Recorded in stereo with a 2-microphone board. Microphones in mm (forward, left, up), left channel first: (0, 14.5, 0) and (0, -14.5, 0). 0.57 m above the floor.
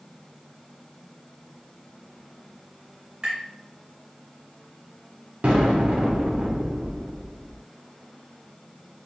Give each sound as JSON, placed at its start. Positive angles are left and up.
{"t": 3.2, "sound": "tapping", "side_deg": -25, "distance_m": 2.0}
{"t": 5.4, "sound": "an explosion", "side_deg": -45, "distance_m": 1.1}